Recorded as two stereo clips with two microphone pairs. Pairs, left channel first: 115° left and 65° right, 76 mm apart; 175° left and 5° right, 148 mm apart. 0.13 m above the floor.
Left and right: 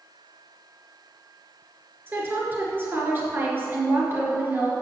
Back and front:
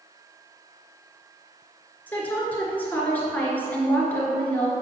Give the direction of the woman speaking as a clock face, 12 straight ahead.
4 o'clock.